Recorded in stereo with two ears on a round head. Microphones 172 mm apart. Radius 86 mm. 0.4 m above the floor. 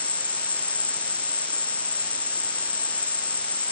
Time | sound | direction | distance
0.0 | an insect | 10° left (ahead or behind) | ?